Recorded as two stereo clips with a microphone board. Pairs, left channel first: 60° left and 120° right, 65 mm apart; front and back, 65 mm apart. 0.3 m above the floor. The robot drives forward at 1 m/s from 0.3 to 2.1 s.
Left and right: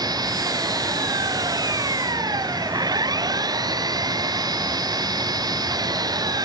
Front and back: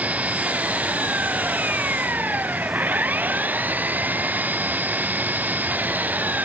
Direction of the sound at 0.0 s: 110° right.